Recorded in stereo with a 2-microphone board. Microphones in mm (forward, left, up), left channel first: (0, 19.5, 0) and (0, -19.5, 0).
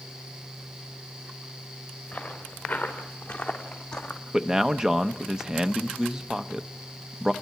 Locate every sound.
2.1 s footsteps: 30° left (ahead or behind), 5.5 m; by 4.2 s 15° left (ahead or behind), 2.5 m
4.3 s a man speaking: 15° right (ahead or behind), 0.8 m